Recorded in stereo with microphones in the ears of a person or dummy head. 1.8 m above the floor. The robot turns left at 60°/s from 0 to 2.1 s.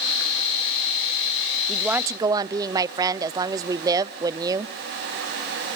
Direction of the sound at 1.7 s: 5° left (ahead or behind).